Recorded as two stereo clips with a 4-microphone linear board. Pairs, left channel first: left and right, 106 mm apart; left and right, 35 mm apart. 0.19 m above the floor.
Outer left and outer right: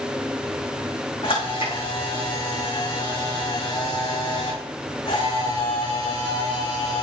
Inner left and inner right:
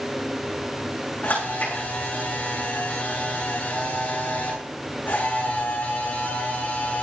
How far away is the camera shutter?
About 6 m.